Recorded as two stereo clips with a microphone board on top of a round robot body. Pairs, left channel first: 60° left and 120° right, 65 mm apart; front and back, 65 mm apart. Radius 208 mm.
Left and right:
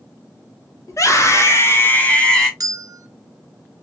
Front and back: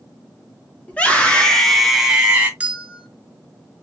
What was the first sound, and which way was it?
A scream, 65° left.